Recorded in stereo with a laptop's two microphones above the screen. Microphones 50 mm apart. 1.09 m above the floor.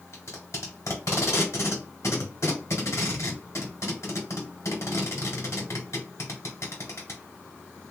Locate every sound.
0.1 s tape being pulled: 70° left (ahead or behind), 1.5 m